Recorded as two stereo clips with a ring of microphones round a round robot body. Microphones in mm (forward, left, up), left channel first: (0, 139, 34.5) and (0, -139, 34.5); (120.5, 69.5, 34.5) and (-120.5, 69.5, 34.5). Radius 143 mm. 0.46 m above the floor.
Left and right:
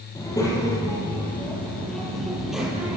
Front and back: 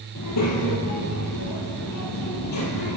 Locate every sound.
0.1 s a child speaking: 15° left, 9.5 m; by 3.0 s 5° right, 9 m